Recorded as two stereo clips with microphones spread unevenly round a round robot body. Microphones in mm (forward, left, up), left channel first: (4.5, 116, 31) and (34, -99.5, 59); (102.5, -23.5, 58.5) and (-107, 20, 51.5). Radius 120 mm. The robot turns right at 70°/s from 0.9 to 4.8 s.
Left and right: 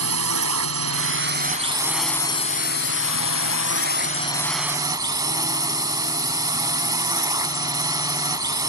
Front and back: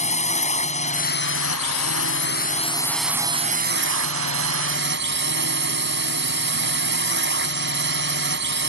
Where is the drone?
70° right; by 8.7 s 155° right.